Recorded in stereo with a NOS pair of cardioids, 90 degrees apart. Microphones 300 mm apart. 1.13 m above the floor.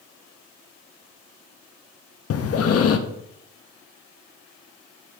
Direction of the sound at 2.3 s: 50° left.